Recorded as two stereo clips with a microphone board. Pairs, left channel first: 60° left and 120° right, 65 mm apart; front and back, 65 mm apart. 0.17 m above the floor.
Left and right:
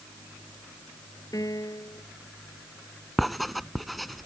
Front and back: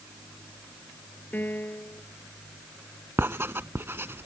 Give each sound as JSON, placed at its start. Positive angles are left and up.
{"t": 1.3, "sound": "a piano", "azimuth_deg": 55}
{"t": 3.2, "sound": "writing", "azimuth_deg": 150}